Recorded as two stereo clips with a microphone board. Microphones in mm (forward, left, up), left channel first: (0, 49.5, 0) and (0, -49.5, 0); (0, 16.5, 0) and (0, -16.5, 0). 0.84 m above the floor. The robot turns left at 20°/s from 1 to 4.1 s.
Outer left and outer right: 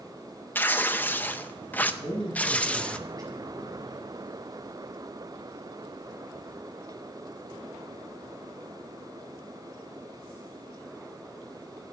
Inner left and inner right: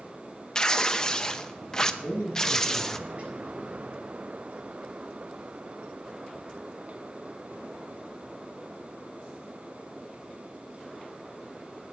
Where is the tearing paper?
20° left (ahead or behind), 0.6 m; by 3.0 s 10° left (ahead or behind), 0.6 m.